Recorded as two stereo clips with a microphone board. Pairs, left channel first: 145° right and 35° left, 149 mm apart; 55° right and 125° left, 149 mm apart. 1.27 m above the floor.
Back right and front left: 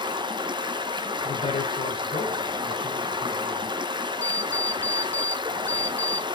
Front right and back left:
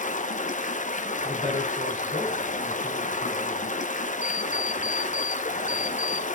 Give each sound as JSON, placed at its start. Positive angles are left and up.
{"t": 0.0, "sound": "running water", "azimuth_deg": -25, "distance_m": 0.9}
{"t": 1.2, "sound": "a woman speaking", "azimuth_deg": -95, "distance_m": 4.5}
{"t": 4.2, "sound": "an alarm clock", "azimuth_deg": -160, "distance_m": 0.7}